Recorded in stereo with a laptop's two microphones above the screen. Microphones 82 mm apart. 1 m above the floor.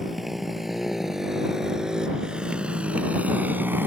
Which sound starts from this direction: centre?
A motorcycle, at 0.0 s.